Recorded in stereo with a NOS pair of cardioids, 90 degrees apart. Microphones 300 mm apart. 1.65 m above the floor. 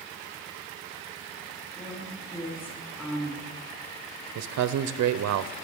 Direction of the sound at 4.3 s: 60° right.